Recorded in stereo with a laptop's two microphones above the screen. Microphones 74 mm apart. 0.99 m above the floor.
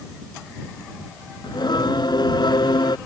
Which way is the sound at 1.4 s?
85° left.